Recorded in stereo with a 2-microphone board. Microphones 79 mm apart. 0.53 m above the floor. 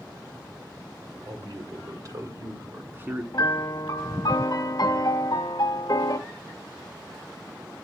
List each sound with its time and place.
1.2 s a man speaking: 60° right (ahead or behind), 2.0 m; by 3.2 s 20° right (ahead or behind), 1.2 m
3.3 s a piano: 55° left (ahead or behind), 1.1 m